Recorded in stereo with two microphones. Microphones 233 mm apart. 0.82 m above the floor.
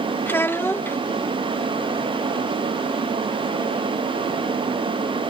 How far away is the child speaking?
About 0.6 m.